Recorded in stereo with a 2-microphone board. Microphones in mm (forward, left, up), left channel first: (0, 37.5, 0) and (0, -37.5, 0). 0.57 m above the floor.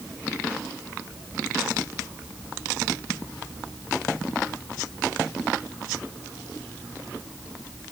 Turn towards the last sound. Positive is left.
No sound to turn to.